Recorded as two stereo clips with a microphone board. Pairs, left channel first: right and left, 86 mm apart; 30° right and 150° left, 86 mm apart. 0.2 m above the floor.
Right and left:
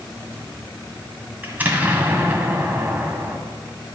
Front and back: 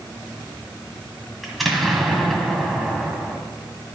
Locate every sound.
1.4 s an explosion: 60° left, 1.5 m